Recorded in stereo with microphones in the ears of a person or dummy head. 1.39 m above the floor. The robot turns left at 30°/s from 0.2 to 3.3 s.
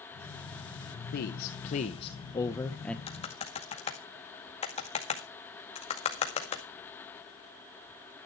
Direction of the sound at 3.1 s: 25° left (ahead or behind).